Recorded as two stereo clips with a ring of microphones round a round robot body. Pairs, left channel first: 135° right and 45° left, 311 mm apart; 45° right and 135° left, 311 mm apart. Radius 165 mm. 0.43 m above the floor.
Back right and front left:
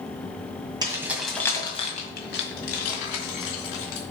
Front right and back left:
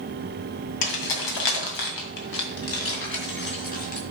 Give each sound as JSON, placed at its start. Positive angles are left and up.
{"t": 0.8, "sound": "keys jangling", "azimuth_deg": -30, "distance_m": 2.0}